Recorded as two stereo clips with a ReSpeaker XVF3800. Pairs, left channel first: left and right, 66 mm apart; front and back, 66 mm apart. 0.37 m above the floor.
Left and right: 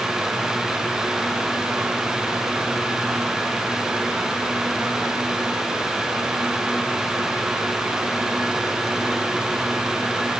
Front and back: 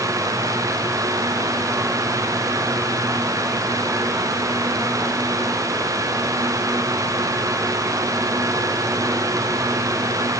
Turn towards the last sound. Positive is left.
No sound to turn to.